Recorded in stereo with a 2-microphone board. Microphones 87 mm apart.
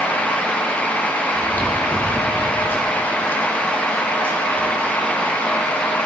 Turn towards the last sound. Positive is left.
turn(degrees=25)  # may be behind; listen again after turning